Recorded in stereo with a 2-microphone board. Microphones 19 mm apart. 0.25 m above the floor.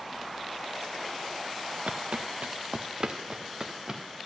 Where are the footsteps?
75° right (ahead or behind), 1.2 m; by 4.0 s 25° right (ahead or behind), 3 m.